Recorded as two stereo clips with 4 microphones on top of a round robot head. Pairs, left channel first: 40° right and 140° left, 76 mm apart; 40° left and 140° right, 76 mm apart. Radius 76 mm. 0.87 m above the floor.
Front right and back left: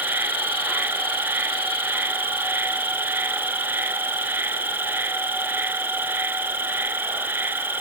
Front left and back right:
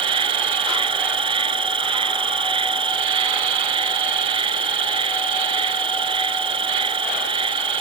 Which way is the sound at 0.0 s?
150° right.